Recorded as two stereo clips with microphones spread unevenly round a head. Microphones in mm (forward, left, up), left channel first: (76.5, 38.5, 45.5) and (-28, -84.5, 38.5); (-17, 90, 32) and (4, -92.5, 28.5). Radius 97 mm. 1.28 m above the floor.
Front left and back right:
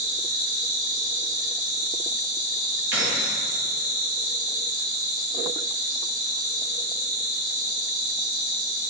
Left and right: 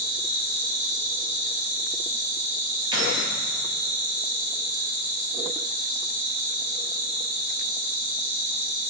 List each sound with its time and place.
0.0 s an insect: 130° right, 2 m
2.9 s keys jangling: 150° right, 1.2 m